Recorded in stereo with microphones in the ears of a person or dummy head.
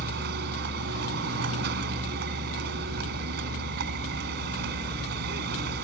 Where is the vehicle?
65° right (ahead or behind).